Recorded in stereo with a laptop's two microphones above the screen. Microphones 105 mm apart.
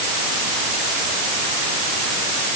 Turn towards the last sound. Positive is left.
No sound to turn to.